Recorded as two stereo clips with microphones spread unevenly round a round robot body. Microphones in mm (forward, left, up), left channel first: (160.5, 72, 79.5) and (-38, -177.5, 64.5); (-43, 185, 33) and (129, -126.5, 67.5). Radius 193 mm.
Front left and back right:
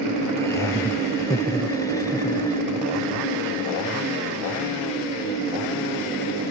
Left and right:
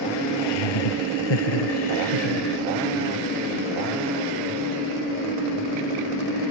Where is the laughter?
135° left; by 2.6 s 130° left.